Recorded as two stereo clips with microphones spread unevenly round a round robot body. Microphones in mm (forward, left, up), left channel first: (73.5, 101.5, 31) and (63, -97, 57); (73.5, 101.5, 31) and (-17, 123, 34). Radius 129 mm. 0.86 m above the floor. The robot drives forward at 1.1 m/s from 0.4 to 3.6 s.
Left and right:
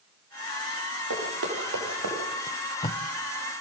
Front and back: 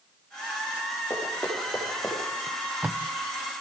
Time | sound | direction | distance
1.1 | running footsteps | 95° right | 7 m
2.5 | tape being pulled | 25° left | 0.6 m